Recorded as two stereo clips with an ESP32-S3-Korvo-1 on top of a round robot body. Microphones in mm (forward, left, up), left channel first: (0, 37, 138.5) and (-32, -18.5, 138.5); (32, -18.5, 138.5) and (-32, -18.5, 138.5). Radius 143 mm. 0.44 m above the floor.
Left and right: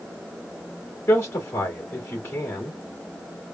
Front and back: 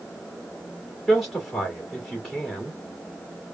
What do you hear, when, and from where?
1.1 s a man speaking: 90° left, 2 m